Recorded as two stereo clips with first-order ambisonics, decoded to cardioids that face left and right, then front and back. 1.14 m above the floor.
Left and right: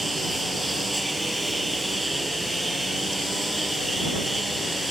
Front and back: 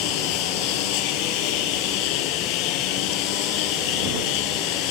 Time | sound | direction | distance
0.0 | a lawn mower | 5° right | ?